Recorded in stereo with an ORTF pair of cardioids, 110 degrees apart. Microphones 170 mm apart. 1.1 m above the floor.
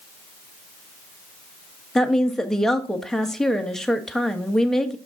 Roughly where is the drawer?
I don't hear a drawer.